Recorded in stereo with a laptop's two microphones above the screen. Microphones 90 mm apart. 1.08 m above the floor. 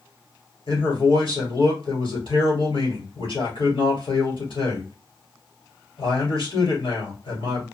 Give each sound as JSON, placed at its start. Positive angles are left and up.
{"t": 0.7, "sound": "a man speaking", "side_deg": 70, "distance_m": 2.5}